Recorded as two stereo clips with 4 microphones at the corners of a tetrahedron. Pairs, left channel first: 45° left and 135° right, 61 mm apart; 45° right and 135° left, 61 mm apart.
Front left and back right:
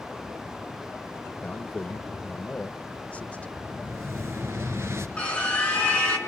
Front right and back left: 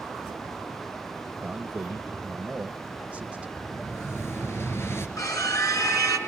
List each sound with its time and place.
1.4 s a man speaking: 85° left, 1.0 m
3.6 s an explosion: 95° right, 3 m
5.2 s a scream: 25° right, 5.5 m